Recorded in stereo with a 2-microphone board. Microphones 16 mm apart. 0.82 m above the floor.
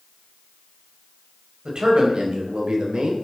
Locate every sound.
1.6 s a man speaking: 65° right (ahead or behind), 4.5 m